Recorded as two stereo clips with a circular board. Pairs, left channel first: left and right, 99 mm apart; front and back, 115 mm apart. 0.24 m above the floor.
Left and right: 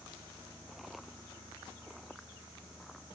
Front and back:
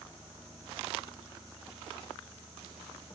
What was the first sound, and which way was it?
Only background noise.